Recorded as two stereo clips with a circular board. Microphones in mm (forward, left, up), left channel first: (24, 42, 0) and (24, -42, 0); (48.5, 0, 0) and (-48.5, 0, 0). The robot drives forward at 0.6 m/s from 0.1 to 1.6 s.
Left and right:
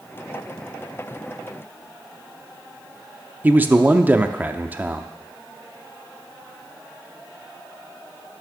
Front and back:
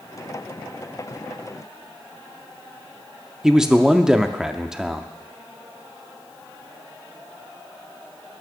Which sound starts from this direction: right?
A man speaking, at 3.4 s.